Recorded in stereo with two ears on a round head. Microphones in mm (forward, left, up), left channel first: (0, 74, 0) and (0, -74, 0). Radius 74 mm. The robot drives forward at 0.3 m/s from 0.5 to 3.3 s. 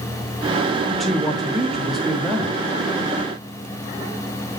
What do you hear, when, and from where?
0.9 s a man speaking: centre (ahead or behind), 0.9 m